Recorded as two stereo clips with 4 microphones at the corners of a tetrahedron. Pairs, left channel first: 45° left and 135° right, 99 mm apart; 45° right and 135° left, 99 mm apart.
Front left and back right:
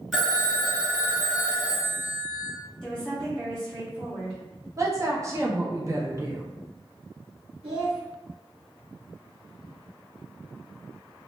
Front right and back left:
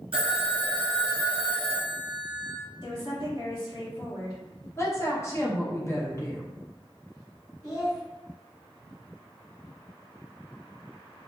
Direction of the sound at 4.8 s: 90° right.